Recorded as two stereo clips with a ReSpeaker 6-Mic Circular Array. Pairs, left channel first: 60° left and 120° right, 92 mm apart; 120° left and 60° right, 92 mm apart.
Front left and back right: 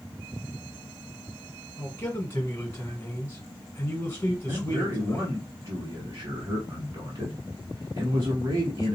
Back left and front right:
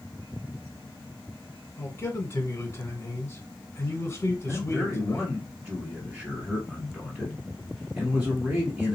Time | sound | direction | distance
1.8 | a man speaking | 90° left | 1.2 m
4.5 | a man speaking | 140° right | 1.3 m